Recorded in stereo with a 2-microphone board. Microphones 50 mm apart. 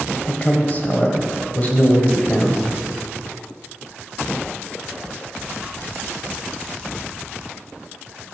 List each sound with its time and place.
0.3 s a man speaking: 35° left (ahead or behind), 1.4 m